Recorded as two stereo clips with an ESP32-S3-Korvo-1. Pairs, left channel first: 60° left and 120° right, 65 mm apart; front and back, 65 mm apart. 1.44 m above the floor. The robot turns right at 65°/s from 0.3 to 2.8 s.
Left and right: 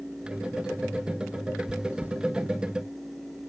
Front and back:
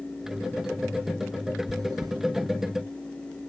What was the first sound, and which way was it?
Chewing, 150° left.